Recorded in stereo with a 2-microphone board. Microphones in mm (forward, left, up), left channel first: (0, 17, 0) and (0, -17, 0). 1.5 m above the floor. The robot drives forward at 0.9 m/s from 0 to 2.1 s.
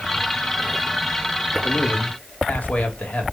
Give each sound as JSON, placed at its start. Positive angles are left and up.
{"t": 1.6, "sound": "a man speaking", "side_deg": 50, "distance_m": 2.5}